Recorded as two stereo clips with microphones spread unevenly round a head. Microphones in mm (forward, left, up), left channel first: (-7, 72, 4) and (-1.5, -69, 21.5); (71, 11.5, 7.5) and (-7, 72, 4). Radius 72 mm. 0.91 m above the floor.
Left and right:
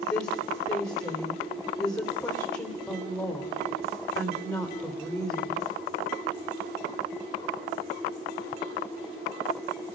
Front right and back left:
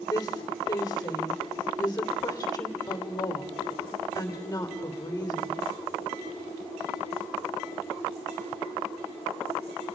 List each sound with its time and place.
0.1 s a woman speaking: 25° left, 3 m